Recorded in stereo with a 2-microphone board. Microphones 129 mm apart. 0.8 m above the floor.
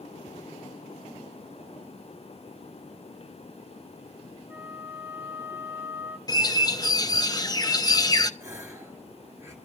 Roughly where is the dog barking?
No dog barking in this recording.